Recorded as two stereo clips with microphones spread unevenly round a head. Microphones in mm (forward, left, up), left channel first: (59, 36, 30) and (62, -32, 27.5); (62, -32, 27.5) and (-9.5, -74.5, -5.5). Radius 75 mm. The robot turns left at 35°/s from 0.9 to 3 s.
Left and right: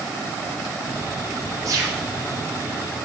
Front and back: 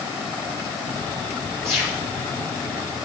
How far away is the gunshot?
About 3 m.